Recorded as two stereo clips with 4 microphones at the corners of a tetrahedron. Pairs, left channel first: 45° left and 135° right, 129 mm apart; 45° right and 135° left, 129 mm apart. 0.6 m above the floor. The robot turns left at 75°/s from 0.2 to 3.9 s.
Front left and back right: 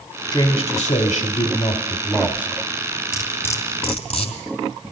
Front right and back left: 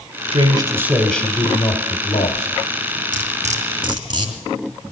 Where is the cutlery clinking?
140° left, 2.5 m; by 4.9 s 85° left, 2.5 m.